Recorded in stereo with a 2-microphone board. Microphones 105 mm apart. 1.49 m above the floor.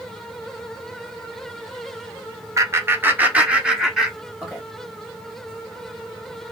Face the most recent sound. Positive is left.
turn(degrees=0)  # may be behind; listen again after turning